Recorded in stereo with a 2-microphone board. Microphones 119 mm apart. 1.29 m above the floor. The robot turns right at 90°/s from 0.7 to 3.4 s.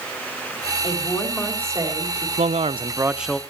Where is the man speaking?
85° right, 0.6 m; by 3.4 s 10° left, 0.6 m.